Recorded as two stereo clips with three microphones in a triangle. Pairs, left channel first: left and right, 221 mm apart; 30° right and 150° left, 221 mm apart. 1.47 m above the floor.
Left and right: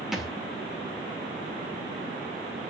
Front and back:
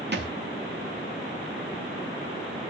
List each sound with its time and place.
0.1 s a thud: straight behind, 2.0 m